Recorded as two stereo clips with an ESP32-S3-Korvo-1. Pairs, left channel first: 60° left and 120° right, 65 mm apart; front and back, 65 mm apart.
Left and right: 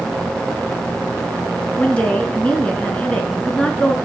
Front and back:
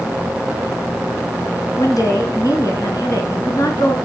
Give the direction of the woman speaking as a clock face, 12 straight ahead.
12 o'clock.